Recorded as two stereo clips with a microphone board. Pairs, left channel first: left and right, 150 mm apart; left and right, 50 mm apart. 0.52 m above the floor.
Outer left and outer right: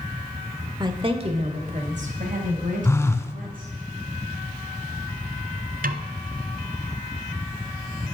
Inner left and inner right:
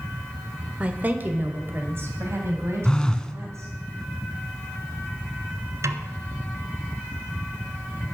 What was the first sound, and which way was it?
A woman speaking, 30° right (ahead or behind).